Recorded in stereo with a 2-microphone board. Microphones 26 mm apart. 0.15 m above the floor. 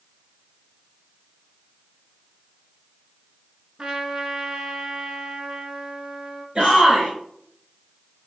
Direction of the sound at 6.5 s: 35° right (ahead or behind).